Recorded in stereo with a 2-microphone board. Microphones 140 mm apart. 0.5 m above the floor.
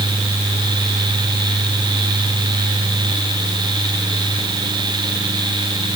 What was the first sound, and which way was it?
Only background noise.